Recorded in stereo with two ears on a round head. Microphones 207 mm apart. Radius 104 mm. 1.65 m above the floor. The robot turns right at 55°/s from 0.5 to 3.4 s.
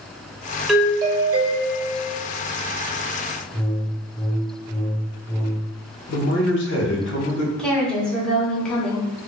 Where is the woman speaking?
5° left (ahead or behind), 1.1 m.